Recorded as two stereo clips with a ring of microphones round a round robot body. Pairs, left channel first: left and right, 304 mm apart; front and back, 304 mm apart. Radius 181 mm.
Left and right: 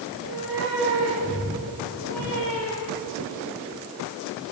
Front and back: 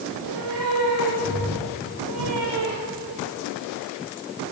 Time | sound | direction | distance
0.1 | a cat meowing | 140° right | 6 m